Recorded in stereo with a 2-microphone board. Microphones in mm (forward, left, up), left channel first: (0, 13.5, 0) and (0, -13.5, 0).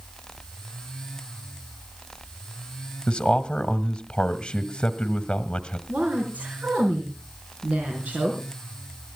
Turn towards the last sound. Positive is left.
turn(degrees=-70)  # may be behind; listen again after turning